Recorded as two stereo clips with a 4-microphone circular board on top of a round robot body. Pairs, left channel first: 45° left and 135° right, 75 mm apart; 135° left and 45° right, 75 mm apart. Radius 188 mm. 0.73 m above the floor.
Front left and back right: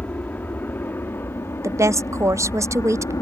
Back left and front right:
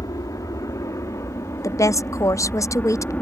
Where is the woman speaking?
Straight behind.